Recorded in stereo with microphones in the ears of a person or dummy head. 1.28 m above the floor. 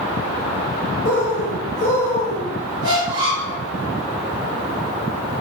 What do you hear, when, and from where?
1.1 s a bird: 70° left (ahead or behind), 1.2 m
2.8 s a squeak: 30° right (ahead or behind), 1.0 m